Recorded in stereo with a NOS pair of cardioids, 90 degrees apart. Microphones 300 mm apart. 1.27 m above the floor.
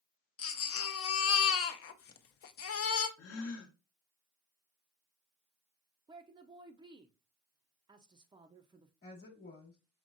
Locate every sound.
0.4 s a baby crying: 50° left, 0.6 m
3.2 s a gasp: 55° left, 0.9 m
6.1 s a woman speaking: 15° right, 0.5 m
9.0 s a woman speaking: 30° left, 1.3 m